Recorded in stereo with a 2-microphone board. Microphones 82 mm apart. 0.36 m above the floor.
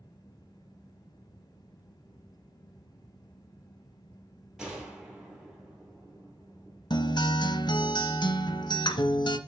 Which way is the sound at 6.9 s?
60° left (ahead or behind).